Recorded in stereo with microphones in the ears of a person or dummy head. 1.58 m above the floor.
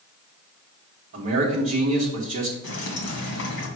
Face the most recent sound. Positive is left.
turn(degrees=65)  # may be behind; listen again after turning